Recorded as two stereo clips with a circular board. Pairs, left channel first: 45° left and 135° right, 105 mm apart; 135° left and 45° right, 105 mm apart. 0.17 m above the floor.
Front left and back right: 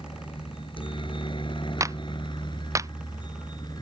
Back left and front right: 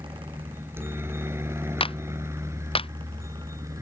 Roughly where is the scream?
I don't hear a scream.